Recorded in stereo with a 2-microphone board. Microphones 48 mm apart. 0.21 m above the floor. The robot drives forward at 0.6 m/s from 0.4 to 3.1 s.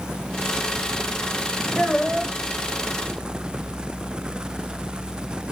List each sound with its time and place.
1.8 s a child speaking: 5° left (ahead or behind), 8 m